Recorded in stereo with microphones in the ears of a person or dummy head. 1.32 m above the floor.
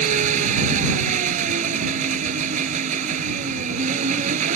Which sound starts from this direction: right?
An engine running, at 0.0 s.